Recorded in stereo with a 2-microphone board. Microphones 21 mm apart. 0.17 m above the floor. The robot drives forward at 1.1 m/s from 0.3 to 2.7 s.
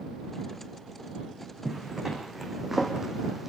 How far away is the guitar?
No guitar in this recording.